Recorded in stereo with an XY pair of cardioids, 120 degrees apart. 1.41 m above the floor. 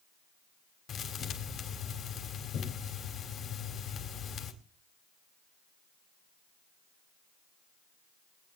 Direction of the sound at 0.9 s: 60° left.